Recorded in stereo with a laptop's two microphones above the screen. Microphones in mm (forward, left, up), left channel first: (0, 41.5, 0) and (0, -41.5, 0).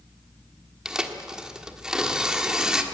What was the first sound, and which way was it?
Tearing paper, 10° right (ahead or behind).